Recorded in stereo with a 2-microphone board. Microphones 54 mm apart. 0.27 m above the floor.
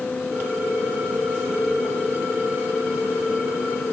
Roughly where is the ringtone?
Right.